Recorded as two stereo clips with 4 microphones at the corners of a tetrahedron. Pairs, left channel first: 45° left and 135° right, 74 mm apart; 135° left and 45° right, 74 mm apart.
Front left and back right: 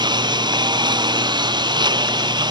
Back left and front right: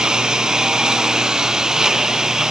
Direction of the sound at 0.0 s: 125° right.